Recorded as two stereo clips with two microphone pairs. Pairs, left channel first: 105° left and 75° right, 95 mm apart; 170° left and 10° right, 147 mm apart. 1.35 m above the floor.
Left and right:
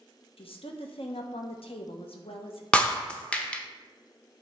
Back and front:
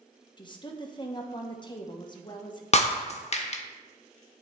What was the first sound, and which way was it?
A woman speaking, 110° left.